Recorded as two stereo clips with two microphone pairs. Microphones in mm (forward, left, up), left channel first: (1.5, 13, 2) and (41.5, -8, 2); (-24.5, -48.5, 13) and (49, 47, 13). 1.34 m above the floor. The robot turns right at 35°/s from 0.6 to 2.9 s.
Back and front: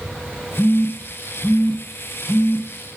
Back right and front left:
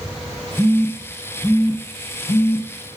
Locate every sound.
0.6 s a phone buzzing: 145° left, 0.6 m; by 2.7 s 145° right, 0.6 m